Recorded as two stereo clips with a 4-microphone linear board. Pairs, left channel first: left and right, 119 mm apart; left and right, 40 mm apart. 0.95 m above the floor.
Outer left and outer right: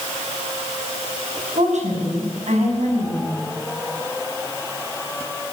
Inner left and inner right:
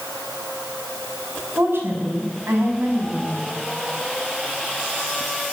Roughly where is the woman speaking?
Right.